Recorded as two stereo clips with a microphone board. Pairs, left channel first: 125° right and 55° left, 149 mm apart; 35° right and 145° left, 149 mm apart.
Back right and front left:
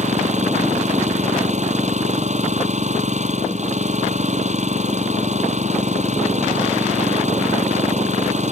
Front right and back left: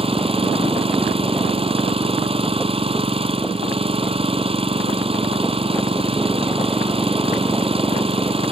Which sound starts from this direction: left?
An engine running, at 0.0 s.